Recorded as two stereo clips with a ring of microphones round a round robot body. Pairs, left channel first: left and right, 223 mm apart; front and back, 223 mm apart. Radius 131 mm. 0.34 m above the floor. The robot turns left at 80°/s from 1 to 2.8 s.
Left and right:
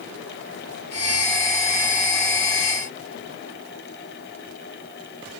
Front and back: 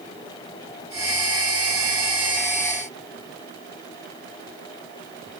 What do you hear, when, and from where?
Only background noise.